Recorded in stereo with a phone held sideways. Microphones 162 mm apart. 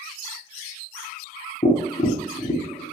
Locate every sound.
1.6 s tapping: 40° left (ahead or behind), 0.6 m